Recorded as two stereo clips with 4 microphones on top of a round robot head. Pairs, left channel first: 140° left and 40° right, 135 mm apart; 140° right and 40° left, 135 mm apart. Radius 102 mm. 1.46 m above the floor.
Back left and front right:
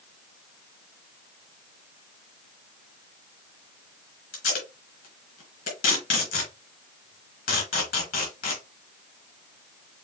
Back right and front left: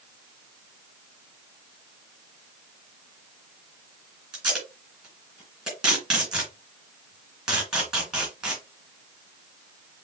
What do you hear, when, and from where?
4.3 s tape being pulled: 125° left, 3 m